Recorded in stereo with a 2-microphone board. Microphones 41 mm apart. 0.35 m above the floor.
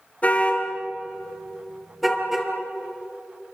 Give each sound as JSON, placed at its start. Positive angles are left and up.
{"t": 0.2, "sound": "a car horn", "side_deg": 35, "distance_m": 3.5}